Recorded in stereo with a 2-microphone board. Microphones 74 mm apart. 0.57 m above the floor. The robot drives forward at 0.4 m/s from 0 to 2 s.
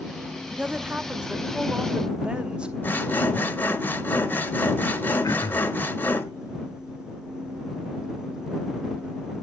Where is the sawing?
25° left (ahead or behind), 1.5 m.